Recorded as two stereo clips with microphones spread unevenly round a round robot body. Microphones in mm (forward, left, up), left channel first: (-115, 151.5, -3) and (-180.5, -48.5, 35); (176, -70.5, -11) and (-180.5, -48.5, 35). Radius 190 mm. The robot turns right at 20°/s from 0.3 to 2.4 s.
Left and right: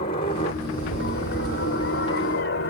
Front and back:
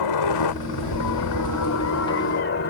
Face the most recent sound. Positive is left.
turn(degrees=50)